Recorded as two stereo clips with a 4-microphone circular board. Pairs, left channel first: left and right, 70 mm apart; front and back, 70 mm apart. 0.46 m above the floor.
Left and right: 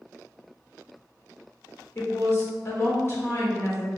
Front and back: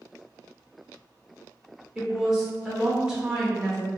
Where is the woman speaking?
105° left, 1.4 m.